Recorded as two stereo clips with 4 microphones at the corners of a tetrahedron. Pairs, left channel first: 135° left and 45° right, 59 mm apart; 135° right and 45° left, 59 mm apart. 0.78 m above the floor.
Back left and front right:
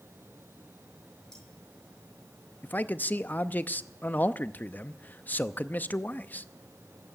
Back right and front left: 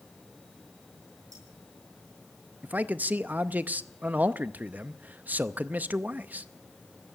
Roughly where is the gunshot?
I don't hear a gunshot.